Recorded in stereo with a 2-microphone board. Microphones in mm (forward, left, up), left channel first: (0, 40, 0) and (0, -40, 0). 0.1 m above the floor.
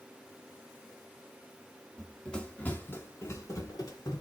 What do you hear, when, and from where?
2.0 s running footsteps: 5° left (ahead or behind), 1.1 m; by 4.2 s 60° left (ahead or behind), 1.3 m